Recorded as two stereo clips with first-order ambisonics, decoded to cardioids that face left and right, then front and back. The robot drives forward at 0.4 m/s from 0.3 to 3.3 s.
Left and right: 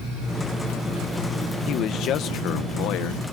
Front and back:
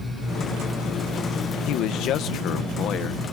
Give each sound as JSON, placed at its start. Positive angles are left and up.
{"t": 1.7, "sound": "a man speaking", "azimuth_deg": 40}